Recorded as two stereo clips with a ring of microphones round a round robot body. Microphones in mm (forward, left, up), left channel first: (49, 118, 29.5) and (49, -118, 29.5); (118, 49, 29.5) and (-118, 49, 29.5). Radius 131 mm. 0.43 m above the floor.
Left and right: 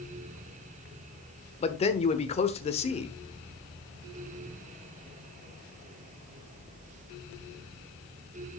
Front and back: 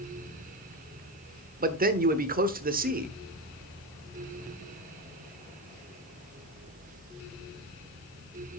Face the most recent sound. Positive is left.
turn(degrees=145)